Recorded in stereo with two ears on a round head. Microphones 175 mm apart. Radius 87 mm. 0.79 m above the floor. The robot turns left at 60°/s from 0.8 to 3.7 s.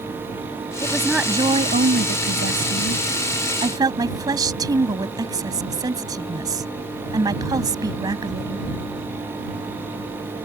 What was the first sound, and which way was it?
A woman speaking, 15° left.